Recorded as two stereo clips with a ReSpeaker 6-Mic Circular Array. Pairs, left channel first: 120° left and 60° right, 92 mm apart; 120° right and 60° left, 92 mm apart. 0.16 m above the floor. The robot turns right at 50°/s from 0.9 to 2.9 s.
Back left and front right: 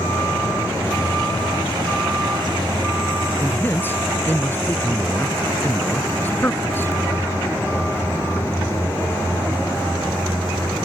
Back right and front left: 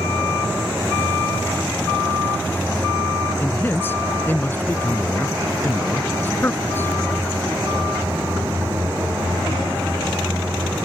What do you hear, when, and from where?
3.4 s a man speaking: straight behind